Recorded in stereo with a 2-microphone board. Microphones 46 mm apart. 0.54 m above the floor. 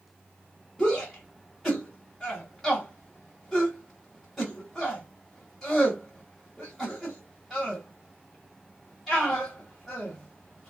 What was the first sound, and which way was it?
A shout, centre (ahead or behind).